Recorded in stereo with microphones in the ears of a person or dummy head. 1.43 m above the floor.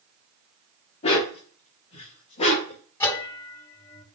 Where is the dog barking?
30° left (ahead or behind), 1.2 m; by 2.8 s 35° left (ahead or behind), 2 m.